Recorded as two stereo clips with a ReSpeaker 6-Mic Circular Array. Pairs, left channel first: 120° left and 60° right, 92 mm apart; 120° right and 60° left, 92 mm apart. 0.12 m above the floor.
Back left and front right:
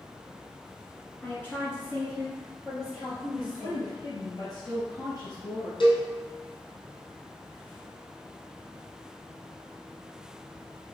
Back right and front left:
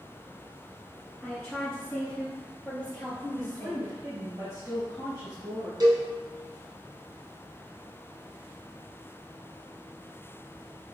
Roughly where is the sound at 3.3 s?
Behind left.